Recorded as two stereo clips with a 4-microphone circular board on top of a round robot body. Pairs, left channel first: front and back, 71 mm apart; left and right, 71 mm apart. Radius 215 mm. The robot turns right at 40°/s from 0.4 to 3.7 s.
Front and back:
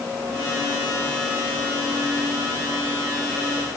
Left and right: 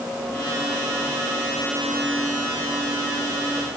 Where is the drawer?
No drawer in this recording.